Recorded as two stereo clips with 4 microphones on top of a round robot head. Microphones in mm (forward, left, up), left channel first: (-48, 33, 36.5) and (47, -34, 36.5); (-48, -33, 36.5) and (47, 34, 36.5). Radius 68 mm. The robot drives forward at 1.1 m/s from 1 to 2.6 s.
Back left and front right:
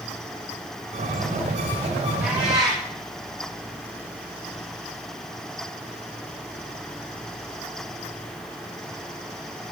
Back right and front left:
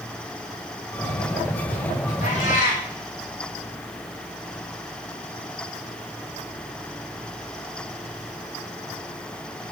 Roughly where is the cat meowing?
Behind right.